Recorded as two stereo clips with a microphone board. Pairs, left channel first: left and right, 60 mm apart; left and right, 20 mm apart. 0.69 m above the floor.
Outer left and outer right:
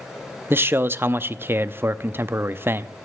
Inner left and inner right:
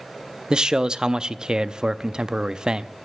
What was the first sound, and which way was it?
A man speaking, 40° right (ahead or behind).